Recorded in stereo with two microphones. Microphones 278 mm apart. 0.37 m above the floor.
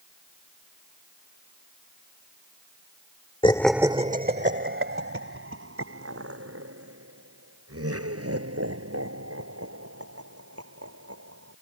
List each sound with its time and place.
3.4 s laughter: 20° left (ahead or behind); by 11.5 s 60° right (ahead or behind)